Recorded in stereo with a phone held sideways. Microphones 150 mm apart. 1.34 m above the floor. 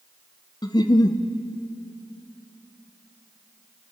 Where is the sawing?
I don't hear sawing.